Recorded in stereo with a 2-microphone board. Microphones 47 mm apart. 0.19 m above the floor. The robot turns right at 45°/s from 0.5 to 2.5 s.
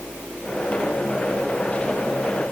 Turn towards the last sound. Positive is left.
No sound to turn to.